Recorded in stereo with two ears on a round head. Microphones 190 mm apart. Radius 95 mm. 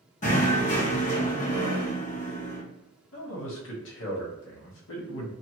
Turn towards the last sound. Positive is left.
turn(degrees=65)  # may be behind; listen again after turning